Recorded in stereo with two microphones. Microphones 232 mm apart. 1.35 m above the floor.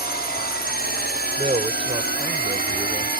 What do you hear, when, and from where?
0.0 s a drone: 40° left (ahead or behind)
1.4 s a man speaking: 25° right (ahead or behind)